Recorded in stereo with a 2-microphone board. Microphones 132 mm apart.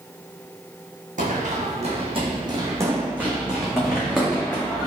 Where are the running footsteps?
70° right (ahead or behind), 1.0 m; by 4.9 s 10° left (ahead or behind), 1.7 m.